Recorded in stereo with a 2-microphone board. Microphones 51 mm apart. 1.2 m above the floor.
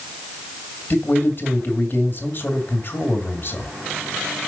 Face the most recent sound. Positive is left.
turn(degrees=45)  # may be behind; listen again after turning